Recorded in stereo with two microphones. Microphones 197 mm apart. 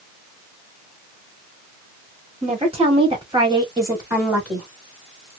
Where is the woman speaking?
35° right (ahead or behind), 1.7 m; by 4.7 s 5° right (ahead or behind), 1.4 m.